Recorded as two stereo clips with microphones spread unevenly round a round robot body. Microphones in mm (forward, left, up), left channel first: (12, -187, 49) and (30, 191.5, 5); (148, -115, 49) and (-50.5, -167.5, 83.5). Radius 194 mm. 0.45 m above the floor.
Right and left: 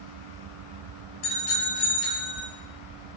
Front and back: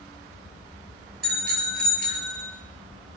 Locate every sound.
1.2 s a bicycle bell: 120° right, 7 m; by 2.5 s 110° right, 7.5 m